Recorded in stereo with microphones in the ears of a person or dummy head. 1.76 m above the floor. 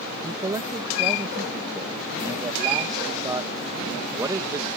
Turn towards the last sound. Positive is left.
turn(degrees=-25)  # may be behind; listen again after turning